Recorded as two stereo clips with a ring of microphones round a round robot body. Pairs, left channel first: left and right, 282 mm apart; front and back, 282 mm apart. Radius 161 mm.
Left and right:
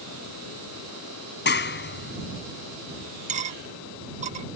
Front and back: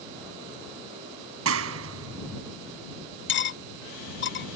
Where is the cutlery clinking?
35° right.